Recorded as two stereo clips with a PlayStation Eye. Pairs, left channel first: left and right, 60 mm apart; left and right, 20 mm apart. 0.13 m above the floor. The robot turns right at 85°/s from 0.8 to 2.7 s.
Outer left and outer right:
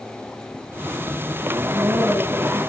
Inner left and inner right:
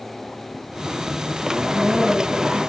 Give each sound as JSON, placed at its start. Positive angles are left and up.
{"t": 1.6, "sound": "a woman speaking", "azimuth_deg": -100, "distance_m": 6.0}